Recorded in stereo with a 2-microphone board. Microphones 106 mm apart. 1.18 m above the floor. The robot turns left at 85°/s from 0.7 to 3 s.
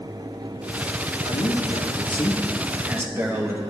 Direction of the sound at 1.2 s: 125° left.